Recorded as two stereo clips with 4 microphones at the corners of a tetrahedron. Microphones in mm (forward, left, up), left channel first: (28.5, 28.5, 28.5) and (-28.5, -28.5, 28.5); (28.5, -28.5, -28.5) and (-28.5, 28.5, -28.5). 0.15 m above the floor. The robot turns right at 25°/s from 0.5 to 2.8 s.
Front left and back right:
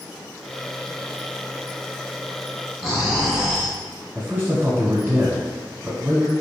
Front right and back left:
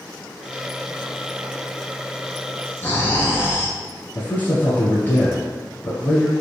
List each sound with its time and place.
2.8 s snoring: 55° right, 1.2 m
4.2 s a man speaking: 90° right, 1.2 m